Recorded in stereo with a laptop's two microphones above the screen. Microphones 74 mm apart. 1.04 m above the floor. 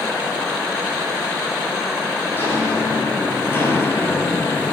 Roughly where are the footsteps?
Left.